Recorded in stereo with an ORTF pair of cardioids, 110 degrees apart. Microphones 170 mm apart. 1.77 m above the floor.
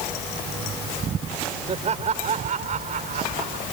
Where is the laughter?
40° right; by 3.6 s 50° right.